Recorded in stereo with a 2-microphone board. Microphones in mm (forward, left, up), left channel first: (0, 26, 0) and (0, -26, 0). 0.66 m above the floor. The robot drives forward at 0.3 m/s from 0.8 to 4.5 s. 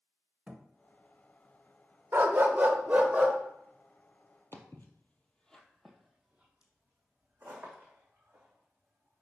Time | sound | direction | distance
0.5 | a thud | 20° right (ahead or behind) | 0.9 m
2.1 | a dog barking | 40° right (ahead or behind) | 0.7 m
4.5 | footsteps | 50° left (ahead or behind) | 1.0 m